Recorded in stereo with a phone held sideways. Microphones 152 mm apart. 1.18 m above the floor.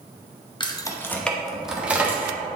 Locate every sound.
0.6 s keys jangling: 30° left (ahead or behind), 0.7 m; by 2.4 s 15° right (ahead or behind), 1.3 m